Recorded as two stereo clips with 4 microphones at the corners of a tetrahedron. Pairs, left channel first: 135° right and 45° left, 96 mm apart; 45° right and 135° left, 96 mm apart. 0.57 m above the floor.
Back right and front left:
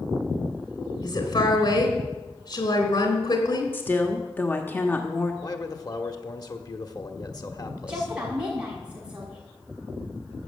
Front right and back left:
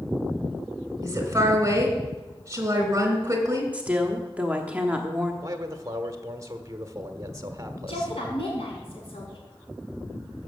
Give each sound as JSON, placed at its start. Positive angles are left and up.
{"t": 1.0, "sound": "a woman speaking", "azimuth_deg": -165, "distance_m": 3.5}
{"t": 3.7, "sound": "a woman speaking", "azimuth_deg": -170, "distance_m": 1.2}
{"t": 5.4, "sound": "a man speaking", "azimuth_deg": -175, "distance_m": 1.3}
{"t": 7.9, "sound": "a woman speaking", "azimuth_deg": -35, "distance_m": 6.0}